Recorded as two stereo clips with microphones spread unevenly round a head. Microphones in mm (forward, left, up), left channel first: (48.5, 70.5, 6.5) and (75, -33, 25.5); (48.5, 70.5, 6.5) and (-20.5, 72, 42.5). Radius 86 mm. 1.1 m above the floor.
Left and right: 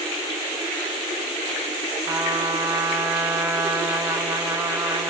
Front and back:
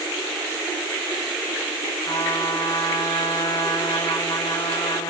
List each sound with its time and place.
2.1 s a trumpet: 5° right, 1.8 m